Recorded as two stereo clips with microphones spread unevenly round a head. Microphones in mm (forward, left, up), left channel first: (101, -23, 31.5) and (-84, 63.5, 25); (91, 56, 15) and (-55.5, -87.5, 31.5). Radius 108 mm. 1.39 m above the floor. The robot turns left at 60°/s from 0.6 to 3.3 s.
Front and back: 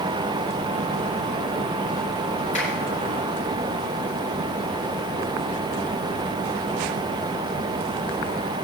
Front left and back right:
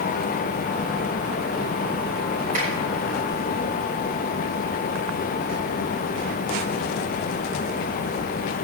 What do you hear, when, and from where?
2.5 s a finger snap: 85° right, 6.5 m; by 2.7 s 90° right, 6.5 m